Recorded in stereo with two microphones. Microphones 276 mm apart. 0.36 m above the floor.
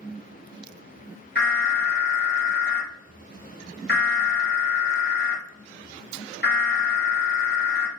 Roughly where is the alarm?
Left.